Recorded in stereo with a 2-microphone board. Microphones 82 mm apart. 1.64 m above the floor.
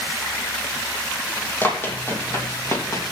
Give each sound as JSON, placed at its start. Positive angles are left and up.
{"t": 1.6, "sound": "running footsteps", "side_deg": 25, "distance_m": 3.0}